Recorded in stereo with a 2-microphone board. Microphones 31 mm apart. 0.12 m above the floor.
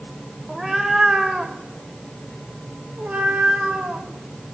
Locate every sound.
0.5 s a cat meowing: 10° right (ahead or behind), 3 m; by 4.1 s 65° right (ahead or behind), 5 m